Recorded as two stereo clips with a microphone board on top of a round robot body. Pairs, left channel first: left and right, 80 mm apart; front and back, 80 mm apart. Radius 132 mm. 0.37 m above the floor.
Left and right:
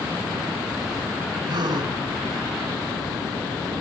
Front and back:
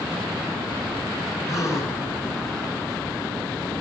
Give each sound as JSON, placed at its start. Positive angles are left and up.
{"t": 1.5, "sound": "a gasp", "azimuth_deg": -55, "distance_m": 4.5}